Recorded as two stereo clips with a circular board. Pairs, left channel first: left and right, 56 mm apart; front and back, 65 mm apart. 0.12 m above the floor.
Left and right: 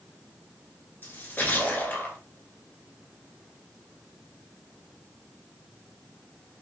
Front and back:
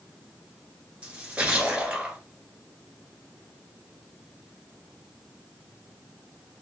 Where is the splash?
120° left, 1.3 m.